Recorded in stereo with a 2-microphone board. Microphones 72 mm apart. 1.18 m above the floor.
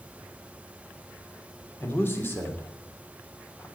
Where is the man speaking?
30° left (ahead or behind), 3 m.